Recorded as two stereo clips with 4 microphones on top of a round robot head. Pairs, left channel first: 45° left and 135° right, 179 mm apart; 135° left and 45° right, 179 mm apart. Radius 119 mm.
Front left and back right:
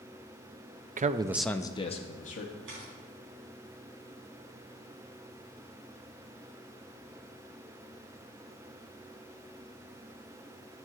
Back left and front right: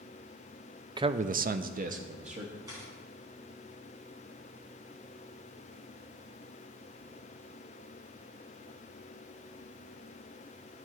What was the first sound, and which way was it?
A man speaking, 105° right.